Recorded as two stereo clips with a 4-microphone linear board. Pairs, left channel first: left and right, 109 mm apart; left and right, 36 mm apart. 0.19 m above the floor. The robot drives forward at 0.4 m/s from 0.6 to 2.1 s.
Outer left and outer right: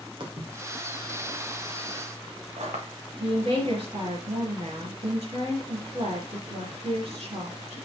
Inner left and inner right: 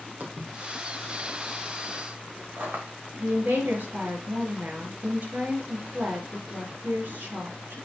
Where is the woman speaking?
65° right (ahead or behind), 4 m.